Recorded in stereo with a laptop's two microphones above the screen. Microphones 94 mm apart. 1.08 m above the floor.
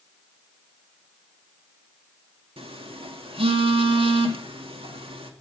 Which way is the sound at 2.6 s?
80° right.